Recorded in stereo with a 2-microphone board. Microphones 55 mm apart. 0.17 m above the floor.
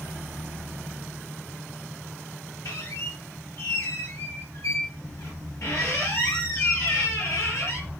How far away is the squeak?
About 1.7 m.